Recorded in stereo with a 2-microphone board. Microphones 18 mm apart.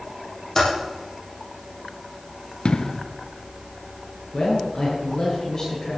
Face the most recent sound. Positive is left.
turn(degrees=30)  # may be behind; listen again after turning